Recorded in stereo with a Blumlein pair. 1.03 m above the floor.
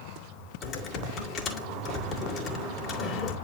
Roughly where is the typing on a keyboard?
Ahead left.